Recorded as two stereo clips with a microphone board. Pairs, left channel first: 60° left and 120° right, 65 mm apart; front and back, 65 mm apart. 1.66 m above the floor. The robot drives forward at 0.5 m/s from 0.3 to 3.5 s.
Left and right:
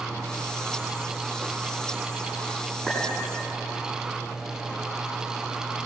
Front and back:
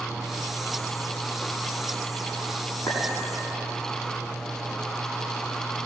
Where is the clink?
40° right, 8 m; by 3.0 s 45° right, 8 m.